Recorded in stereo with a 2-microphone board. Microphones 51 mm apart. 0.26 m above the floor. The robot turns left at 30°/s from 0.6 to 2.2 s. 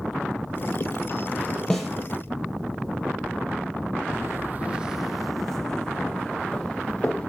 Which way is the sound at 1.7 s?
10° left (ahead or behind).